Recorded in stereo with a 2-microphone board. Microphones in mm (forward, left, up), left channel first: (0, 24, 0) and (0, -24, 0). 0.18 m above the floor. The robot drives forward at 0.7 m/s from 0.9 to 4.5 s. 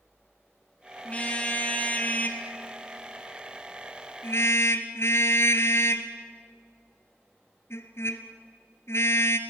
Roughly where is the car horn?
Left.